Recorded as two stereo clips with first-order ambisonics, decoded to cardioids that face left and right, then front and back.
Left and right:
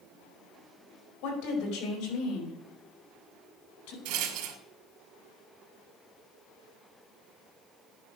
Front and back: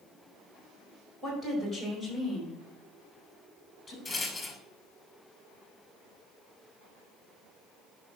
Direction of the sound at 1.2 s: 105° left.